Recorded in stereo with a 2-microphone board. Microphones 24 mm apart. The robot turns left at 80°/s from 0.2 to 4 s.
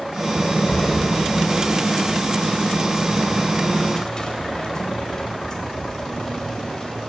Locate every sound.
0.4 s a cupboard door: 75° left, 3 m; by 7.1 s 145° left, 3 m